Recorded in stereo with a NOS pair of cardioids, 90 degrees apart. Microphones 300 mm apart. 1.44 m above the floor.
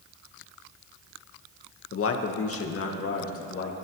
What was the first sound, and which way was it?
A man speaking, 45° left.